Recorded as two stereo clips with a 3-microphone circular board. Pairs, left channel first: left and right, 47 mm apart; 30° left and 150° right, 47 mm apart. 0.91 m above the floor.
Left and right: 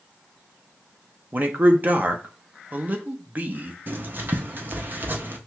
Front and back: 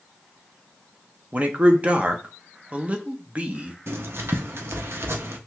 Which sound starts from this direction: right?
A man speaking, at 1.3 s.